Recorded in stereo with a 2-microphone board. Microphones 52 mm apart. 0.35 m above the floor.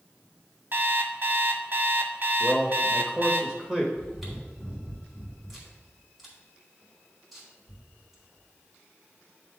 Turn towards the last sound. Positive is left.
turn(degrees=0)  # may be behind; listen again after turning